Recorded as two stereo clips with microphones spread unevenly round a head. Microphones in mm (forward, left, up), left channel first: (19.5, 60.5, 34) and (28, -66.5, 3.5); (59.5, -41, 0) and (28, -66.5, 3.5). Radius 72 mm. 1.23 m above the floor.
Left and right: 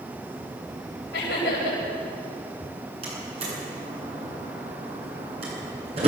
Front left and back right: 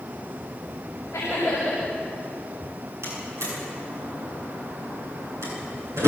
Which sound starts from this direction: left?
Laughter, at 1.1 s.